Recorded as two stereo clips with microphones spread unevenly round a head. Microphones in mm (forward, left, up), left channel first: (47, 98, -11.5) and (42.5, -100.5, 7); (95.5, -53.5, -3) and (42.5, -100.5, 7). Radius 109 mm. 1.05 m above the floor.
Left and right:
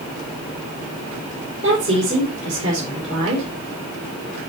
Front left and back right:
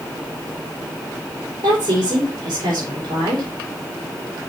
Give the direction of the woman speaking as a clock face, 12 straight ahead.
4 o'clock.